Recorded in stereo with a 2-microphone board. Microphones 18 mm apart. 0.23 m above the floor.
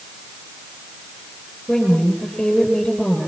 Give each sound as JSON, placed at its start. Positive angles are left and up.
{"t": 1.7, "sound": "a woman speaking", "side_deg": 35, "distance_m": 6.0}